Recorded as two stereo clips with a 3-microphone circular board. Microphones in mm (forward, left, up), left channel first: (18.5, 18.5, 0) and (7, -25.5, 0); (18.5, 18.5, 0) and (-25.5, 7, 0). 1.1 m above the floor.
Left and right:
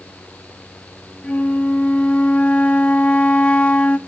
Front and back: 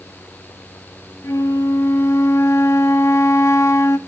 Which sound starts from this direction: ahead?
A flute, at 1.2 s.